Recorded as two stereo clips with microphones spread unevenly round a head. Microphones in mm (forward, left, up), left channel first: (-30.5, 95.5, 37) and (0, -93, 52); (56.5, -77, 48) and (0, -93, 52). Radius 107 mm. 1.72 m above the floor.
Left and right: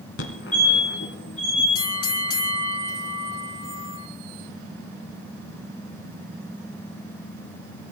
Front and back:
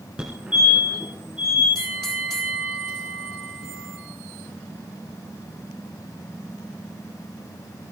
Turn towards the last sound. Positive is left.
turn(degrees=80)